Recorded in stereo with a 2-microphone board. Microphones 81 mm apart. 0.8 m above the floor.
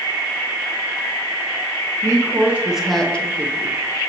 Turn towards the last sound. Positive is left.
turn(degrees=40)  # may be behind; listen again after turning